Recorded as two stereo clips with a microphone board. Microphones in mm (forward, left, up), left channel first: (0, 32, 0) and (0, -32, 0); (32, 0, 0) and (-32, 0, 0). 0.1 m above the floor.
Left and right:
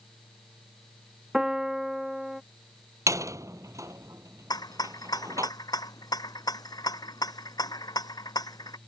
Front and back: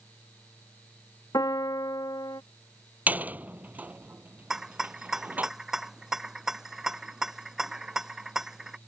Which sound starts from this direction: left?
A rattle, at 4.5 s.